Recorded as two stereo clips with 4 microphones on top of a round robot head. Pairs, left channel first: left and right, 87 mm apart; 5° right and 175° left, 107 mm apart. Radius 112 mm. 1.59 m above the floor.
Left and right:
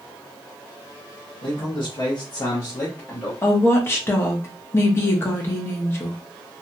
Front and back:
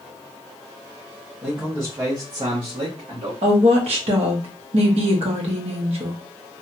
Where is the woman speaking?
150° left, 0.9 m.